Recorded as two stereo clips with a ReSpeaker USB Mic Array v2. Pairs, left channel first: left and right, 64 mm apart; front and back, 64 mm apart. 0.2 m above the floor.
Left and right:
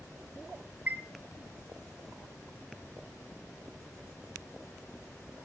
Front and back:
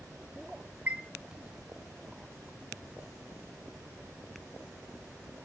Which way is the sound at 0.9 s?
130° right.